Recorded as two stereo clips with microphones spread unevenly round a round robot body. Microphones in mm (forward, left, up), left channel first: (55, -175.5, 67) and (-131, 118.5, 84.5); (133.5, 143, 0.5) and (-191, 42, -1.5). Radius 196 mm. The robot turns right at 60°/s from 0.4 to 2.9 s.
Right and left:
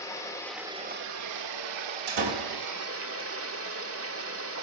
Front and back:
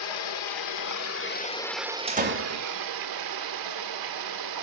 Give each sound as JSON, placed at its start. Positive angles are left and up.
{"t": 0.0, "sound": "running water", "azimuth_deg": 25, "distance_m": 1.5}
{"t": 2.1, "sound": "a door slam", "azimuth_deg": 125, "distance_m": 2.5}